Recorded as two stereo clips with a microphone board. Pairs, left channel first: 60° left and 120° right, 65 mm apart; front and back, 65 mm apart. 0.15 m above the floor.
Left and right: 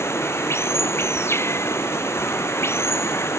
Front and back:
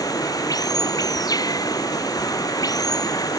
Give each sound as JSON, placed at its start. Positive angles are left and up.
{"t": 0.0, "sound": "running water", "azimuth_deg": 10}